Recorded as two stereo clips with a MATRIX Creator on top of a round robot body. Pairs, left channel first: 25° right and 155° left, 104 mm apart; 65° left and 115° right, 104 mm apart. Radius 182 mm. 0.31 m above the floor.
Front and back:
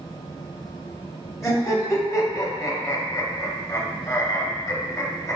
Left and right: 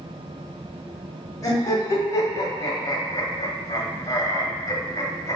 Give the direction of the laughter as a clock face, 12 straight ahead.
11 o'clock.